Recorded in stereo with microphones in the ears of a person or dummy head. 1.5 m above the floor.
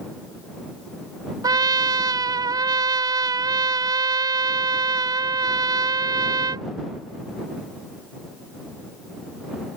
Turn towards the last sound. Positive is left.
turn(degrees=-20)  # may be behind; listen again after turning